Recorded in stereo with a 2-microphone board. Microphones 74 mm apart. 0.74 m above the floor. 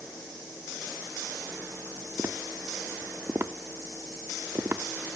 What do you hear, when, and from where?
2.2 s tapping: 30° right (ahead or behind), 0.8 m